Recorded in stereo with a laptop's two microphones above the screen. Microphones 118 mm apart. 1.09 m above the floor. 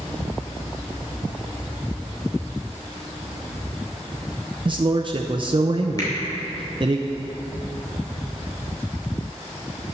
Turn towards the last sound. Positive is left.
turn(degrees=30)  # may be behind; listen again after turning